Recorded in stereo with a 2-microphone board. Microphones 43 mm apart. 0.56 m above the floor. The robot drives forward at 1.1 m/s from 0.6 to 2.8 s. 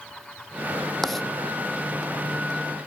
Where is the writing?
5° left (ahead or behind).